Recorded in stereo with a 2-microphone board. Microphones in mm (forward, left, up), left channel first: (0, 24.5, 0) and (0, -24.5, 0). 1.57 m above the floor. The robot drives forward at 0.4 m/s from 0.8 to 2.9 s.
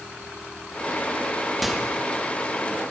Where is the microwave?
5° right (ahead or behind), 2.5 m.